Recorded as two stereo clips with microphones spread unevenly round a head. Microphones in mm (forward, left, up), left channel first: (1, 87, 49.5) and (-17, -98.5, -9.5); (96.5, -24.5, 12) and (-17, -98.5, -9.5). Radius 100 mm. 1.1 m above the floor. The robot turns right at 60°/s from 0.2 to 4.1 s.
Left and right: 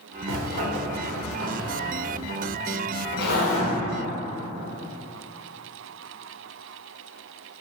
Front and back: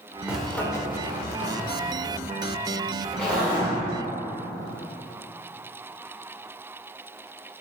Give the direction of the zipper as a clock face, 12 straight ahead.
2 o'clock.